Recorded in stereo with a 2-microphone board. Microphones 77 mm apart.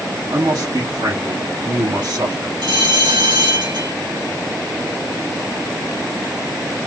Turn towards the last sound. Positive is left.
turn(degrees=-80)